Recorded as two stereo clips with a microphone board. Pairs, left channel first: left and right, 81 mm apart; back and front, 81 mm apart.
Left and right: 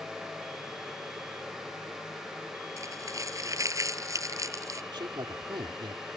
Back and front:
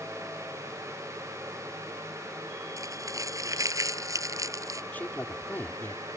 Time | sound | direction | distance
2.8 | crumpling | 45° right | ?
4.9 | a man speaking | 110° right | ?